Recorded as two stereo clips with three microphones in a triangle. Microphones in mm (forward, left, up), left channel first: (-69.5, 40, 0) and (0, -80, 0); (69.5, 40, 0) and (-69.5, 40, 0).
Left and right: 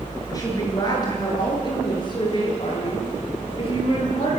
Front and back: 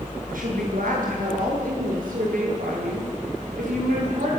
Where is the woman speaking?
175° right, 8.5 m; by 4.3 s 170° left, 12.5 m.